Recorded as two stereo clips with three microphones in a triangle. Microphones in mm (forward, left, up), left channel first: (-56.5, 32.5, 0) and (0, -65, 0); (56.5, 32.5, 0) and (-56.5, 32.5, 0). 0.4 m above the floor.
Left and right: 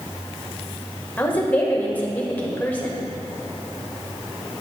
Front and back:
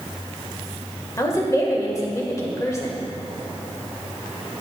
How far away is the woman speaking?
About 1.1 m.